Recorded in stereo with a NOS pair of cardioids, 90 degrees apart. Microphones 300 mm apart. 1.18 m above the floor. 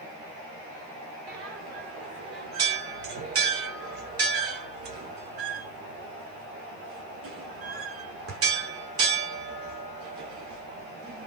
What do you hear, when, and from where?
1.3 s a bell: 50° right, 2 m